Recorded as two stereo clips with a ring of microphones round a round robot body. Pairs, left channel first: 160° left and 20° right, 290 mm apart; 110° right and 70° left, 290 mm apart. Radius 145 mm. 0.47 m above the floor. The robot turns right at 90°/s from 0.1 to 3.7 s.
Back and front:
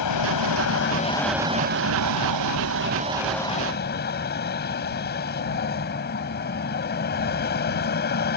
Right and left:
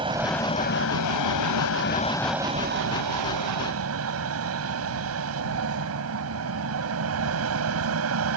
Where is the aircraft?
140° left; by 8.4 s 105° left.